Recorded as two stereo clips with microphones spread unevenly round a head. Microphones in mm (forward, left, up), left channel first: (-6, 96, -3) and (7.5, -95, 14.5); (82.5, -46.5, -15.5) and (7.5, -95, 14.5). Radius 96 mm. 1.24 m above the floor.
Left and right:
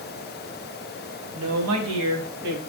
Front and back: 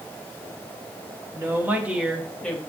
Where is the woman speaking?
90° right, 1.5 m; by 2.6 s 50° right, 1.4 m.